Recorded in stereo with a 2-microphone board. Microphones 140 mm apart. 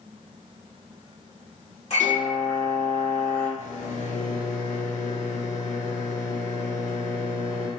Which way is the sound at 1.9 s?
50° left (ahead or behind).